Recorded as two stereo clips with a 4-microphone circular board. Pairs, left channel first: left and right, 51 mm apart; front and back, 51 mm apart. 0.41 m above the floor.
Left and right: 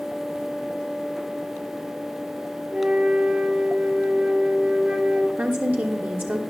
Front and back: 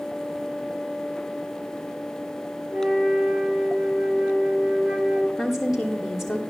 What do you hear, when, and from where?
2.7 s a flute: 135° right, 1.7 m
5.4 s a woman speaking: 95° right, 1.0 m